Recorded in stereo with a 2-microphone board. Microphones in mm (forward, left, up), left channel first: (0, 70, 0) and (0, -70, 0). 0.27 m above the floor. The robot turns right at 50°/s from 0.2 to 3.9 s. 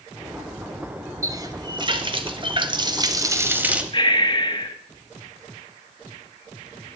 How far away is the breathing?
About 1.1 m.